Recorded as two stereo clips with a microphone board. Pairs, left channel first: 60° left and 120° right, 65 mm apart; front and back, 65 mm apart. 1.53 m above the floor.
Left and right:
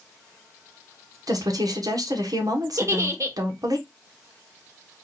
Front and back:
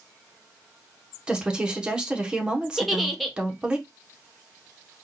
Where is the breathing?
No breathing in this recording.